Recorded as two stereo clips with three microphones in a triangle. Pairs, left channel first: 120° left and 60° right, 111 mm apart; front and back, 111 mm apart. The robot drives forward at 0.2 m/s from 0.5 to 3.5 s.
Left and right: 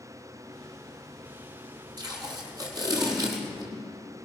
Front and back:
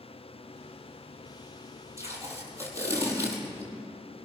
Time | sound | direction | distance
2.0 | tape being pulled | 115° right | 5 m